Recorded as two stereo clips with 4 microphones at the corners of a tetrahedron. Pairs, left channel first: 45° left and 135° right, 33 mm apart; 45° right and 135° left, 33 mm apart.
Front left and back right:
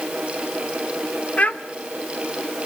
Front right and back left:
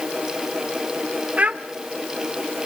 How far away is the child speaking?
About 1.8 m.